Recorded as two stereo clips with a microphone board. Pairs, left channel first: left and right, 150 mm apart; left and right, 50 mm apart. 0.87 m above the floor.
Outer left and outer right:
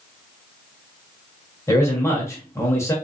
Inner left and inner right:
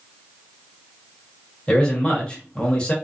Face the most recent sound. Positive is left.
turn(degrees=20)  # may be behind; listen again after turning